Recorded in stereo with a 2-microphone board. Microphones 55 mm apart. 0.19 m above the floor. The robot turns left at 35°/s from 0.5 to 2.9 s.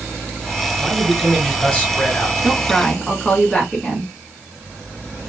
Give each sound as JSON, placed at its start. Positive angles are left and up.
{"t": 0.8, "sound": "a man speaking", "side_deg": 5, "distance_m": 1.7}
{"t": 2.4, "sound": "a woman speaking", "side_deg": -5, "distance_m": 1.6}